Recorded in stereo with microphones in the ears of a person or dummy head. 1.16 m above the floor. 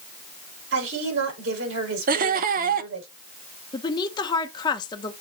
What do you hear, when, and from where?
0.7 s a woman speaking: 80° right, 5 m
2.1 s laughter: 40° right (ahead or behind), 0.5 m
3.7 s a woman speaking: 20° left (ahead or behind), 1.0 m